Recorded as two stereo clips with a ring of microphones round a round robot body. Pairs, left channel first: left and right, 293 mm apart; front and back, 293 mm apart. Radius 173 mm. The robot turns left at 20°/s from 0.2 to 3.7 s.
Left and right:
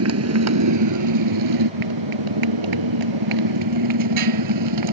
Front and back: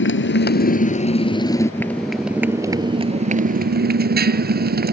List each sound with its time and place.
0.0 s a motorcycle: 50° right; by 5.0 s 120° right